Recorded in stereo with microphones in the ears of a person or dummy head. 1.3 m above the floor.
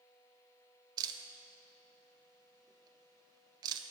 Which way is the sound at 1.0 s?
20° right (ahead or behind).